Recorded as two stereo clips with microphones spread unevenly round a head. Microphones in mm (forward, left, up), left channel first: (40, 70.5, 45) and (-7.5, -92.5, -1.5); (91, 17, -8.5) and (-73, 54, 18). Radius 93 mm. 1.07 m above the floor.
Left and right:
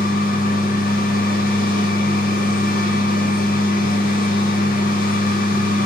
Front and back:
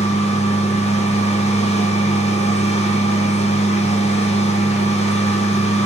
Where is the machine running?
30° left, 0.7 m.